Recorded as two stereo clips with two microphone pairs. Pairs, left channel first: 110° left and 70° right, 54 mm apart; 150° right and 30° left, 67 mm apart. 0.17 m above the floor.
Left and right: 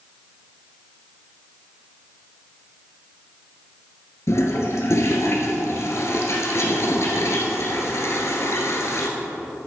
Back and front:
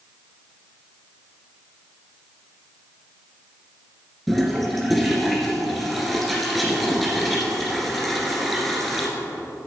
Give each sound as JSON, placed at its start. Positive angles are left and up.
{"t": 4.3, "sound": "a toilet flushing", "azimuth_deg": 125, "distance_m": 1.9}